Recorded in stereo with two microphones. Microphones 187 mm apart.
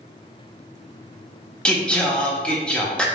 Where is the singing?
5° left (ahead or behind), 0.7 m.